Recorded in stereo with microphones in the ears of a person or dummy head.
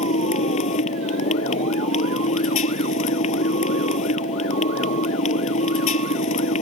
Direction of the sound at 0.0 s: 45° left (ahead or behind).